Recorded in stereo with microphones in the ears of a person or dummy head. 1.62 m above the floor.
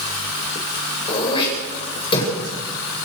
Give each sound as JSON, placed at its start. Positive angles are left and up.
{"t": 1.1, "sound": "throat clearing", "side_deg": 30, "distance_m": 9.0}